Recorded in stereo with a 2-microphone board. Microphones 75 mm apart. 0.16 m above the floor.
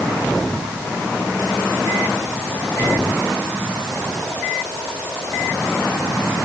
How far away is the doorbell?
No doorbell in this recording.